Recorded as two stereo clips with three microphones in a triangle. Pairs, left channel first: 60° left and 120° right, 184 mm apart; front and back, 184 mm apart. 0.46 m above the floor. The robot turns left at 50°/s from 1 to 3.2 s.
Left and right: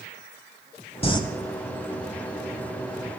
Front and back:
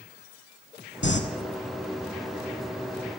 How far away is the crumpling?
About 0.9 m.